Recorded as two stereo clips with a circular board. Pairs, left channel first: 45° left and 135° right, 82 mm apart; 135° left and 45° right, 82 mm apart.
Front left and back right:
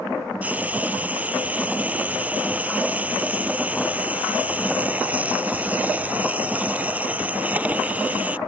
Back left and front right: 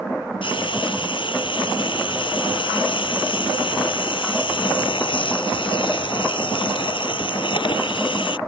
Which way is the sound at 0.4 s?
150° left.